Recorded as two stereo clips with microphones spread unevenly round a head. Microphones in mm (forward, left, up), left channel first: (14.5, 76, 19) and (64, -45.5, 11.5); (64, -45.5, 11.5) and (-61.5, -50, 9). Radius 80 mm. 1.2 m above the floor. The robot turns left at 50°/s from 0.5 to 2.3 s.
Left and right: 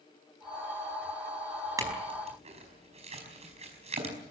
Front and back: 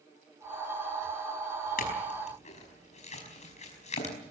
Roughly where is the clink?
Ahead.